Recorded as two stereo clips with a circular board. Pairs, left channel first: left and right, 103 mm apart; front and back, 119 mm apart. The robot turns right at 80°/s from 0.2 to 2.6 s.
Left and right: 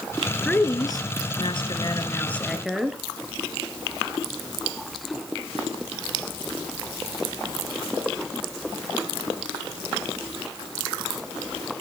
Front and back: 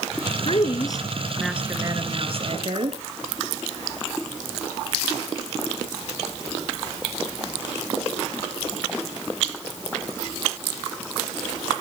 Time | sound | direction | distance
0.5 | a woman speaking | 15° left | 1.7 m